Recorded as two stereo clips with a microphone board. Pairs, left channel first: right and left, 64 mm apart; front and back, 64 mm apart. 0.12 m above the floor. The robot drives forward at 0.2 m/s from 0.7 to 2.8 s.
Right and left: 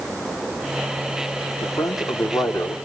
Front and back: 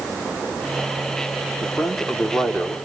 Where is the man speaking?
90° right, 4.5 m.